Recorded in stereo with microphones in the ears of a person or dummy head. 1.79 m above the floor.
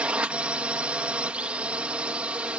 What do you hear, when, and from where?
0.0 s a drone: 10° right (ahead or behind)